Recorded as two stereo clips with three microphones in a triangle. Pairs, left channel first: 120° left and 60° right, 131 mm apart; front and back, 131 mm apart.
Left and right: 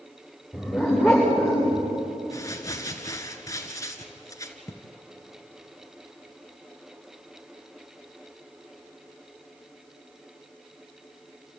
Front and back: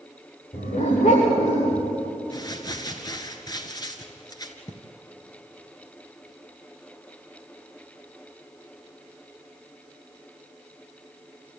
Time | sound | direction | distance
0.5 | a dog barking | 25° left | 8.5 m
2.3 | crumpling | 55° left | 1.6 m